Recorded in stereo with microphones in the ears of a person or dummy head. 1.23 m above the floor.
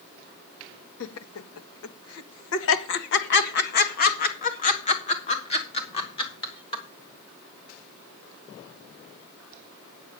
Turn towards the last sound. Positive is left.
turn(degrees=25)  # may be behind; listen again after turning